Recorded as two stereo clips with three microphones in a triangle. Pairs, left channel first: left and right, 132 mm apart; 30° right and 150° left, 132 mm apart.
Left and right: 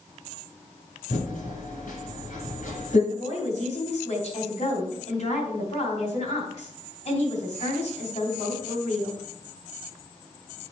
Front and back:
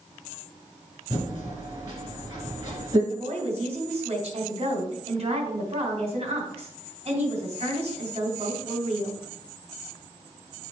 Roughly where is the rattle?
I don't hear a rattle.